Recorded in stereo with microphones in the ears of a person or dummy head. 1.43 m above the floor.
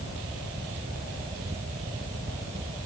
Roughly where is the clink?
I don't hear a clink.